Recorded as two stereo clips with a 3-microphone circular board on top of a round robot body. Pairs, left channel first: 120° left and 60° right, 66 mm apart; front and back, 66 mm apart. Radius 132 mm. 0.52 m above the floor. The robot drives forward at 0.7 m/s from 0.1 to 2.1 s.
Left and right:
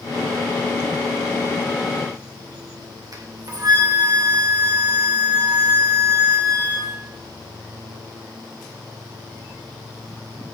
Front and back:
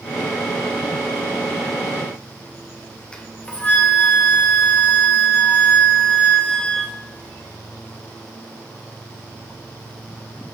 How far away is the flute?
About 2.5 m.